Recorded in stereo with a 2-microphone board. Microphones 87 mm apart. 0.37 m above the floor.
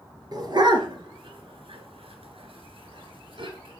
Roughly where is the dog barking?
Right.